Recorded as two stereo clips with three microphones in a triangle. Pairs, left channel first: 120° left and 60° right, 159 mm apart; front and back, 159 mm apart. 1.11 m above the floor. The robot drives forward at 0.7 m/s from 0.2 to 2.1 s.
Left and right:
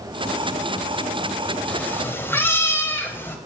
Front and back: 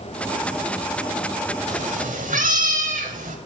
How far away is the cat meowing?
About 1.2 m.